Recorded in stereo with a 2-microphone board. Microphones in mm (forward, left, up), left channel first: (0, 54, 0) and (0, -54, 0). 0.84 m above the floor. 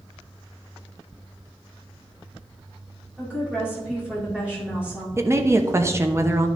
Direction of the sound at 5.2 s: 25° right (ahead or behind).